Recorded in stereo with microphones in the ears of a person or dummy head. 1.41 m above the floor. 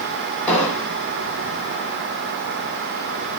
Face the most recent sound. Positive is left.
turn(degrees=10)  # may be behind; listen again after turning